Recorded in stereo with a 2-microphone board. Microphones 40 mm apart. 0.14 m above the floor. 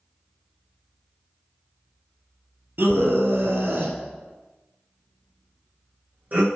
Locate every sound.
2.8 s a scream: 60° right (ahead or behind), 2.5 m; by 6.5 s 45° right (ahead or behind), 5.5 m